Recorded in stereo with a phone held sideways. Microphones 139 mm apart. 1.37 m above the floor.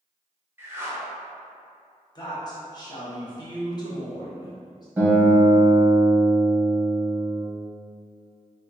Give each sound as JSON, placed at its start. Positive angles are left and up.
{"t": 0.6, "sound": "a whoosh", "side_deg": -15, "distance_m": 0.8}
{"t": 2.1, "sound": "a woman speaking", "side_deg": 30, "distance_m": 1.1}
{"t": 5.0, "sound": "a guitar", "side_deg": -15, "distance_m": 1.5}